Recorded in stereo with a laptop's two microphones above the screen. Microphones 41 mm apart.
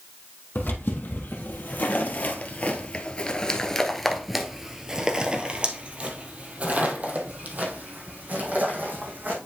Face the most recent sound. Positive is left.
turn(degrees=-50)  # may be behind; listen again after turning